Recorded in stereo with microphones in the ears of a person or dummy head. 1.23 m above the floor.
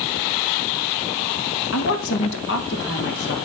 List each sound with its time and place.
1.7 s a woman speaking: 70° left (ahead or behind), 1.4 m; by 3.4 s 60° left (ahead or behind), 2.5 m